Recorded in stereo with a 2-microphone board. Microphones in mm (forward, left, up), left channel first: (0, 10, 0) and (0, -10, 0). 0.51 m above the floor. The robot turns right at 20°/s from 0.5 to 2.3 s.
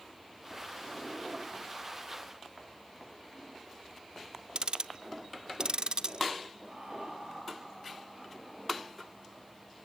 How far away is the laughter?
About 8 m.